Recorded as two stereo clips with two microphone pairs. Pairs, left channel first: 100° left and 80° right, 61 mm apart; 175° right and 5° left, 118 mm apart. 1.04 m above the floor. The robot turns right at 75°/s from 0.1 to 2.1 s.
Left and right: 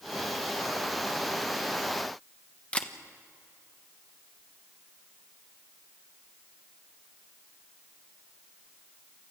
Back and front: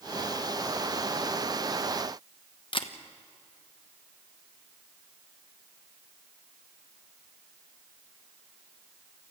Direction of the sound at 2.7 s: 165° left.